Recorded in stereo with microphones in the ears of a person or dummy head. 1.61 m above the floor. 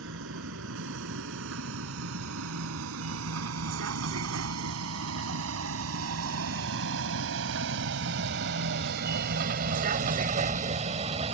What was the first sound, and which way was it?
A vehicle, 70° right (ahead or behind).